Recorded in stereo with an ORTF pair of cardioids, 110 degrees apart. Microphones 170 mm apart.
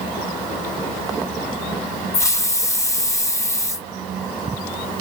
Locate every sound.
2.1 s a hiss: 20° left, 1.1 m